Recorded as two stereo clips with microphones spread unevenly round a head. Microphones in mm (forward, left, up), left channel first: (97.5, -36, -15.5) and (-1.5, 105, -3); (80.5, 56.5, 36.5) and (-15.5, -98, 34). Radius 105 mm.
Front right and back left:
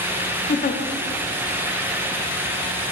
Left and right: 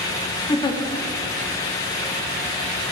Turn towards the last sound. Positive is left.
turn(degrees=-10)